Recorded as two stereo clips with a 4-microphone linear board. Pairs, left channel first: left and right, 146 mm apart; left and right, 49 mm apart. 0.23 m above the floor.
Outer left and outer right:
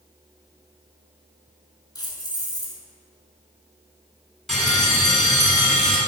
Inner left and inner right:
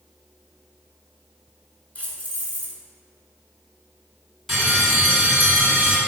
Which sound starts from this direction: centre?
A bell, at 4.5 s.